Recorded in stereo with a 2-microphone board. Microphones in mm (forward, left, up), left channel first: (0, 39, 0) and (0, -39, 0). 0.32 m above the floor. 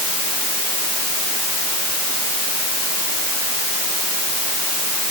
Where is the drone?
I don't hear a drone.